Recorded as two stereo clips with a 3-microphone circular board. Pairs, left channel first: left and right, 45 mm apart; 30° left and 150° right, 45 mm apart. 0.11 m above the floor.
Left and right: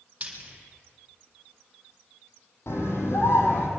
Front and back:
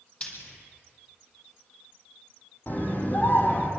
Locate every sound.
0.2 s frying: 30° right, 4 m
2.7 s a scream: 75° left, 4 m